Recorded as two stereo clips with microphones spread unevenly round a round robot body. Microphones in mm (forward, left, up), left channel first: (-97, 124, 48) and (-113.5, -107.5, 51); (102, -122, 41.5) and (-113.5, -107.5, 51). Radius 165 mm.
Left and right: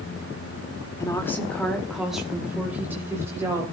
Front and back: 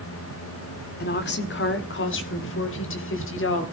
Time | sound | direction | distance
1.0 | a woman speaking | 10° left | 1.8 m